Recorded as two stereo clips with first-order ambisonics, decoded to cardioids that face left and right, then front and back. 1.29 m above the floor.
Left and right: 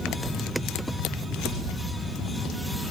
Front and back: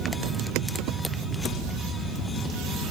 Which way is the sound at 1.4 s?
40° left.